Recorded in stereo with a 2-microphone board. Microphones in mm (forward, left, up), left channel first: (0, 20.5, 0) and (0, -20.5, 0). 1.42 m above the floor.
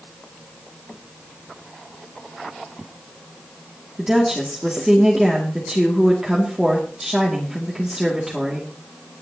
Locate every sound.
4.0 s a woman speaking: 15° right (ahead or behind), 2 m